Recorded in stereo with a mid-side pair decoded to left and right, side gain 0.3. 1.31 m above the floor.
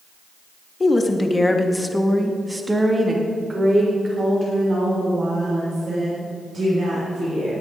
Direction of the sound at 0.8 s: 40° left.